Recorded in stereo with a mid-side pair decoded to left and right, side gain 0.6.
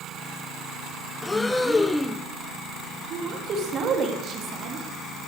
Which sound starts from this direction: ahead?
Breathing, at 1.2 s.